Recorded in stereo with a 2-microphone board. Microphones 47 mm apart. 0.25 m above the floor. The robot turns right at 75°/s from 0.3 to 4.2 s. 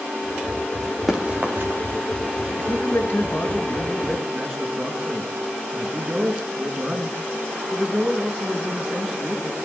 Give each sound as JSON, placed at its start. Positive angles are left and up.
{"t": 1.1, "sound": "running footsteps", "side_deg": -10, "distance_m": 3.0}
{"t": 2.6, "sound": "a man speaking", "azimuth_deg": 75, "distance_m": 3.5}